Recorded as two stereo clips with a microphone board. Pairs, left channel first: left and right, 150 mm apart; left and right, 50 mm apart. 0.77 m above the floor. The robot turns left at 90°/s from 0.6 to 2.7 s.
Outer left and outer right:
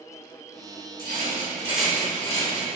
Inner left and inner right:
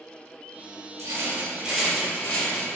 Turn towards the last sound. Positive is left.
turn(degrees=100)